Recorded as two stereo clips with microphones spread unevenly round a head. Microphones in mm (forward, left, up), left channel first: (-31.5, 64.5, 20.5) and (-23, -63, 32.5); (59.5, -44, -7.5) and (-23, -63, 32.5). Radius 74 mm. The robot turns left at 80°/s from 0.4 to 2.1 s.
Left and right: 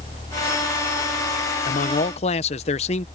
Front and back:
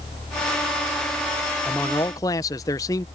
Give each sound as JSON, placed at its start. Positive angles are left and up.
{"t": 1.6, "sound": "a man speaking", "azimuth_deg": 95}